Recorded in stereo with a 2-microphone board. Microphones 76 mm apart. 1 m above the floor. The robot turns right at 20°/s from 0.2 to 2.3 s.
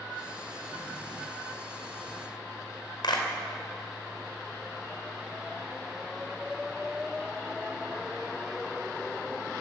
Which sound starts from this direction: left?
A clap, at 3.0 s.